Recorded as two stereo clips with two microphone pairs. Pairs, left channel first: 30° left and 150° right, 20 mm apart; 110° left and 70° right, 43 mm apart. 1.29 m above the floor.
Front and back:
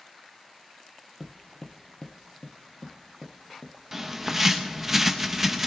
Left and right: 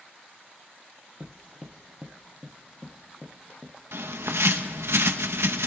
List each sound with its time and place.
1.2 s footsteps: 60° right, 1.5 m; by 3.7 s 35° left, 2 m
3.9 s a bird: 75° right, 1.0 m